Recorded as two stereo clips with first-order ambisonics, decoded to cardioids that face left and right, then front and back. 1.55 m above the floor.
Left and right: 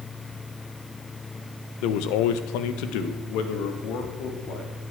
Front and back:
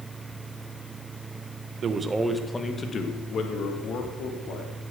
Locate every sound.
1.8 s a man speaking: 120° left, 1.3 m; by 4.7 s 45° left, 4 m